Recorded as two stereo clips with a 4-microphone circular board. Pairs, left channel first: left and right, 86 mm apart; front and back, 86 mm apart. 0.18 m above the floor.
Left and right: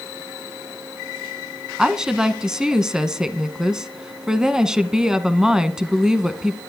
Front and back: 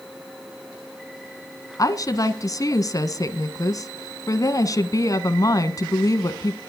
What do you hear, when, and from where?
1.8 s a woman speaking: 10° right, 1.3 m